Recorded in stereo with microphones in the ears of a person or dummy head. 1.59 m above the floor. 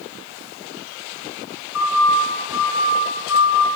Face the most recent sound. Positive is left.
turn(degrees=80)